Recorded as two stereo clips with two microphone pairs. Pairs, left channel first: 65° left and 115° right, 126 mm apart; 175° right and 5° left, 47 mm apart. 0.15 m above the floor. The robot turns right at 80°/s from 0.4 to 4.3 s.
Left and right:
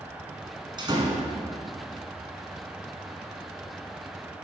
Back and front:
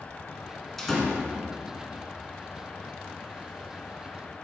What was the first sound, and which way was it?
A door slam, 100° right.